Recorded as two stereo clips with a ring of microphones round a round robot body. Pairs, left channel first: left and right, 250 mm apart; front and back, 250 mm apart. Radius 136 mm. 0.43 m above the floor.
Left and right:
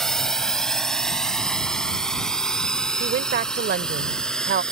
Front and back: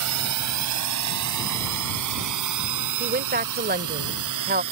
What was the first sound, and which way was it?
A drone, straight behind.